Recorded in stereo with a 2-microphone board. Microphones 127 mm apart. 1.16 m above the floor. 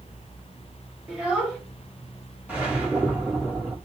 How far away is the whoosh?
About 1.3 m.